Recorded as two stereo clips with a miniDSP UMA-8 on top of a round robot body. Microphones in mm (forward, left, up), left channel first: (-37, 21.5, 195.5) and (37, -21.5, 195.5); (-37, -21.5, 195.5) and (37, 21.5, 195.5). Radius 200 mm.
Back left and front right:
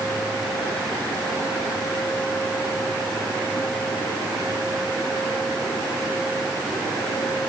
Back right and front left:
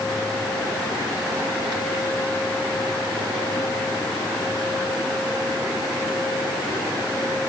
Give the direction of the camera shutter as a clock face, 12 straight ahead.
No camera shutter in this recording.